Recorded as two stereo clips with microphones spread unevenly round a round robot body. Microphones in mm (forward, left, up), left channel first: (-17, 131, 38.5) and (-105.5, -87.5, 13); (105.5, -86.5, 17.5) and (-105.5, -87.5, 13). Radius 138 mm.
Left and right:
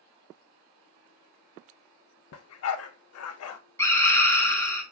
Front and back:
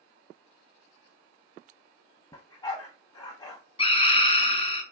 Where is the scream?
10° right, 1.0 m.